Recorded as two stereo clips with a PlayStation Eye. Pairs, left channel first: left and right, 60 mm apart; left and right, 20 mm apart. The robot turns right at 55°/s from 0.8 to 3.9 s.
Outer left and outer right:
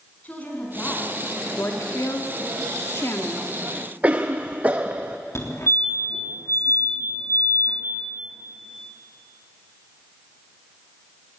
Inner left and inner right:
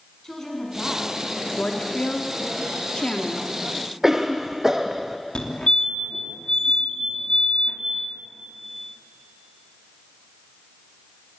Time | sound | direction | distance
0.2 | a woman speaking | 155° left | 7.5 m
1.6 | a woman speaking | 45° left (ahead or behind) | 2 m
4.0 | a cough | 25° right (ahead or behind) | 0.7 m
5.3 | a fire alarm | 50° left (ahead or behind) | 3.5 m